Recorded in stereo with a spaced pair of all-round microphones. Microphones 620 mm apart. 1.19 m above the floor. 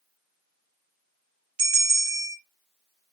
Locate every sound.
1.6 s a bell: 40° right (ahead or behind), 0.5 m